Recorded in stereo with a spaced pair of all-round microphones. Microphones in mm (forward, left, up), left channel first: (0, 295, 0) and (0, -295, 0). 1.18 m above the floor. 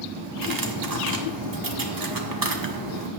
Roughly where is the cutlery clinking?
Right.